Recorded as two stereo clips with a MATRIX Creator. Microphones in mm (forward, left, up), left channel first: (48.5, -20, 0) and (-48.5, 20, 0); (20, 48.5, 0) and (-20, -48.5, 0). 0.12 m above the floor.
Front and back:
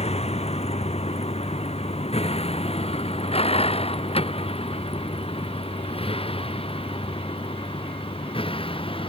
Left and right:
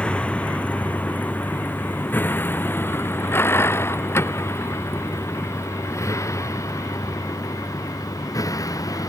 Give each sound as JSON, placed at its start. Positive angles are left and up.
{"t": 0.0, "sound": "a vehicle", "azimuth_deg": -10}